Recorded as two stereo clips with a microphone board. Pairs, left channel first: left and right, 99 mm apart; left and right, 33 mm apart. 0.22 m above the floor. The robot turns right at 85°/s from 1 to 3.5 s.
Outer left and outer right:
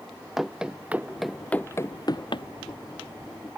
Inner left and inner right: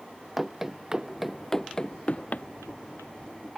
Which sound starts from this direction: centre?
Running footsteps, at 0.4 s.